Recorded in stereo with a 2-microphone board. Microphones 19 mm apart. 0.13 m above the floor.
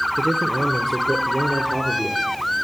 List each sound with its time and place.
0.2 s a man speaking: 15° right (ahead or behind), 1.7 m; by 2.3 s 30° right (ahead or behind), 3 m